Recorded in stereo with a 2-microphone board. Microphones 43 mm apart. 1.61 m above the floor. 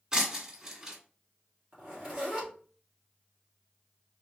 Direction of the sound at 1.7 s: 20° right (ahead or behind).